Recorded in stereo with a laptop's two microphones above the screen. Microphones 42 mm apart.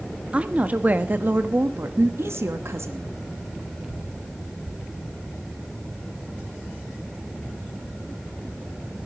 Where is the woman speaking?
25° right (ahead or behind), 1.5 m; by 3.1 s 75° right (ahead or behind), 1.5 m.